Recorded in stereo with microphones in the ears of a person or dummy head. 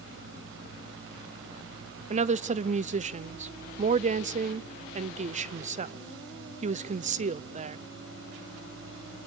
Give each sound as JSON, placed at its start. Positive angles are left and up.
{"t": 0.0, "sound": "a fan", "side_deg": -75, "distance_m": 4.0}
{"t": 2.1, "sound": "a woman speaking", "side_deg": -35, "distance_m": 0.6}